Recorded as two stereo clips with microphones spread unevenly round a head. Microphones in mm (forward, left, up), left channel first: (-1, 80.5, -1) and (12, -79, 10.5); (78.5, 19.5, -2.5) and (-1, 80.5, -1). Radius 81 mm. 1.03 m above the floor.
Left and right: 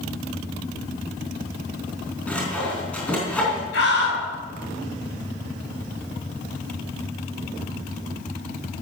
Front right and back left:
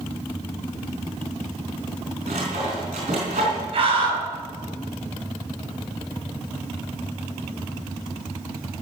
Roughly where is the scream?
Behind left.